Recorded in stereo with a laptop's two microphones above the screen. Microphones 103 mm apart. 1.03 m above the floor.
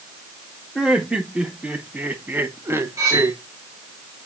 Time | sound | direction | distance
0.8 | laughter | 5° right (ahead or behind) | 2 m
3.0 | cutlery clinking | 30° right (ahead or behind) | 2.5 m